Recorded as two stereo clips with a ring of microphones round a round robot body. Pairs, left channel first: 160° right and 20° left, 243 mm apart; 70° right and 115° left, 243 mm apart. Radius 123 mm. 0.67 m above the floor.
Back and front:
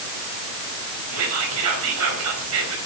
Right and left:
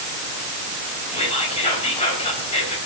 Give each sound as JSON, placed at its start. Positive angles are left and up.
{"t": 1.1, "sound": "whispering", "azimuth_deg": 0, "distance_m": 4.5}